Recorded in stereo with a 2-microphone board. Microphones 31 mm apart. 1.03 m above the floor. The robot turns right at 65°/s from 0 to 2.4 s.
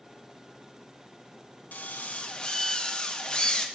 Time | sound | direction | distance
1.7 | a drill | 105° left | 0.7 m